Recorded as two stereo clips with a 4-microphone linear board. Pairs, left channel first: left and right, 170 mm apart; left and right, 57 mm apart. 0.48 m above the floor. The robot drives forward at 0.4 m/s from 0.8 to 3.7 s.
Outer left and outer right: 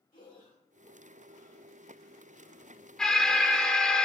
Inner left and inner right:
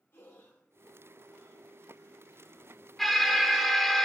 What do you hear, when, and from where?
0.1 s breathing: 55° left (ahead or behind), 2 m; by 2.9 s 65° left (ahead or behind), 1.9 m
3.0 s an alarm: 5° left (ahead or behind), 1.0 m